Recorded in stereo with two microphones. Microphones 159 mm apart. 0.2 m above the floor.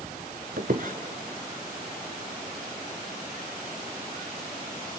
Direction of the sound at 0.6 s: 65° right (ahead or behind).